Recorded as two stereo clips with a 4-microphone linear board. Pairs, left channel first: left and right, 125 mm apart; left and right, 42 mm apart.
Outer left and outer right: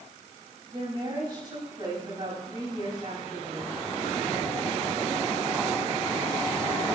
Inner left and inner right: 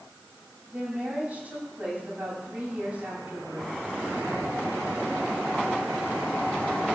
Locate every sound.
0.7 s a woman speaking: 40° right (ahead or behind), 9 m